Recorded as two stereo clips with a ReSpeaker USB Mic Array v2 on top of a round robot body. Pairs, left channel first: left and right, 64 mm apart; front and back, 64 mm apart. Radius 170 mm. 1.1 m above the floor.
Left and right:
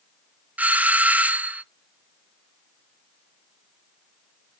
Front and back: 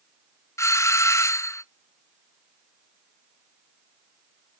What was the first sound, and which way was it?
A doorbell, 25° right.